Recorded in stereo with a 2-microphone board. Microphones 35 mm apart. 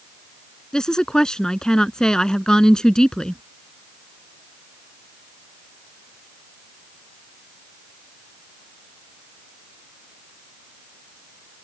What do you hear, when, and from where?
0.7 s a woman speaking: 20° left (ahead or behind)